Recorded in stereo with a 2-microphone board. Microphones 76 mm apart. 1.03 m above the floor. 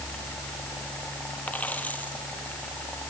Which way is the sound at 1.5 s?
20° left (ahead or behind).